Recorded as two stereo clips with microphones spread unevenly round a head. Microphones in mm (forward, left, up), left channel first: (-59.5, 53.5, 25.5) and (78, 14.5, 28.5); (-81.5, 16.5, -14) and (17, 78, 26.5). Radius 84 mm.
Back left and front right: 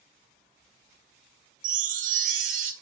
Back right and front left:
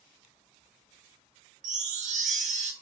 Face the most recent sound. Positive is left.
turn(degrees=15)